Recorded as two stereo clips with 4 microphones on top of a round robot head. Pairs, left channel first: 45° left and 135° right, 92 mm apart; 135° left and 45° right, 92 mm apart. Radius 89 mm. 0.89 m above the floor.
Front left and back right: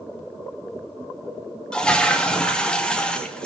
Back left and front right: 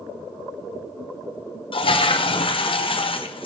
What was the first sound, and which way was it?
A toilet flushing, 125° left.